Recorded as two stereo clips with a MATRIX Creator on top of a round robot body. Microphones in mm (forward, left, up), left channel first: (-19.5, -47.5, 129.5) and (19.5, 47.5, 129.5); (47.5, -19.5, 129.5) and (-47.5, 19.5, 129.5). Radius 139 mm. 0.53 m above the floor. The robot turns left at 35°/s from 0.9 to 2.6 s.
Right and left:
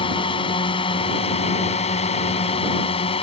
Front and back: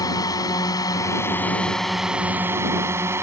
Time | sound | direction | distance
0.0 | a drone | 80° right | ?